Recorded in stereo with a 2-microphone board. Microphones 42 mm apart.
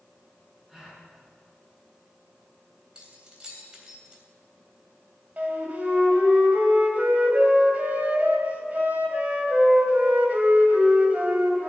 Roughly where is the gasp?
Centre.